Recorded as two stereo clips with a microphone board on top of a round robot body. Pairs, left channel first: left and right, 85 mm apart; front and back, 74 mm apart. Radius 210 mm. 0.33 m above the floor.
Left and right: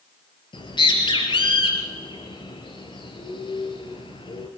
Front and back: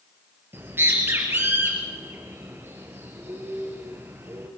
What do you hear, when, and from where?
0.5 s a bird: 120° left, 3.5 m